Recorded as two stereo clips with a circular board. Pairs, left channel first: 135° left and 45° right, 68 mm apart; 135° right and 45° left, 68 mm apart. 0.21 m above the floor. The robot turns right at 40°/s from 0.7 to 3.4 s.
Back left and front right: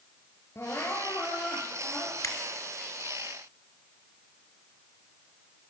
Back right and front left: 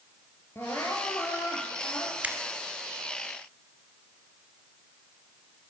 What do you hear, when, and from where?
0.6 s crying: 175° left, 3 m; by 2.1 s 125° right, 3 m
2.2 s a finger snap: 105° left, 2 m; by 2.4 s 110° left, 2 m